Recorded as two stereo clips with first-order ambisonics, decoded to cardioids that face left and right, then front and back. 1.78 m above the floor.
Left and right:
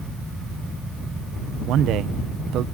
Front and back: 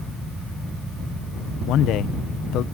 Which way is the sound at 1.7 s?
45° right.